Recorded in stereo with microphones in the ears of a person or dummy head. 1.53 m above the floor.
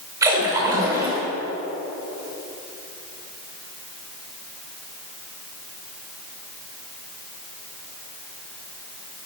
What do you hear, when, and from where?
0.2 s a splash: 15° right (ahead or behind), 2.5 m